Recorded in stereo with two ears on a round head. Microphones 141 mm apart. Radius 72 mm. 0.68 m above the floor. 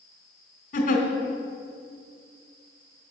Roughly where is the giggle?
Left.